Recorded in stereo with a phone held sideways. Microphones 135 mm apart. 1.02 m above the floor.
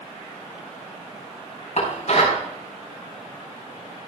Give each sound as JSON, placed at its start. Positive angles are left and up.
{"t": 1.8, "sound": "dishes clattering", "side_deg": 60, "distance_m": 4.5}